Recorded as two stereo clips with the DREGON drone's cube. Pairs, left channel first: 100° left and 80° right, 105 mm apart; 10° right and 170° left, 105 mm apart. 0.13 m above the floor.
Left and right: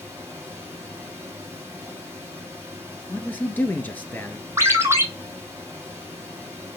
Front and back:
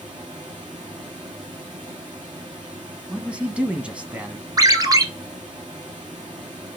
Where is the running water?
145° right, 4 m.